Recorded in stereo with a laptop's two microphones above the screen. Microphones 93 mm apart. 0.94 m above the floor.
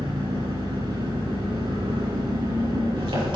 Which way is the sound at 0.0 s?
65° right (ahead or behind).